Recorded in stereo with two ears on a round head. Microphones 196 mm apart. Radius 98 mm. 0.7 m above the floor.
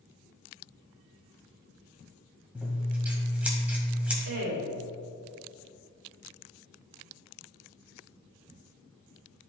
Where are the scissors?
5° right (ahead or behind), 1.9 m.